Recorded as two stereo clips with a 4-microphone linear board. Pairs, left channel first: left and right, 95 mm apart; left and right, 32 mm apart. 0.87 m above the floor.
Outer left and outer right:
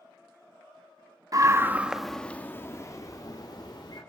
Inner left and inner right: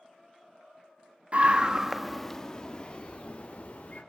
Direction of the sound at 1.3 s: 40° right (ahead or behind).